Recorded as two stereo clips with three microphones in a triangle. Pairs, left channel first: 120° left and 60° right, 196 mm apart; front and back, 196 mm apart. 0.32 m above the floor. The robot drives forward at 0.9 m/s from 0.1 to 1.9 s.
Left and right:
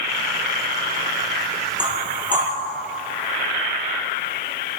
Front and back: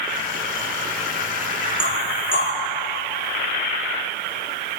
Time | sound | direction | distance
1.8 | knocking | 10° right | 7.5 m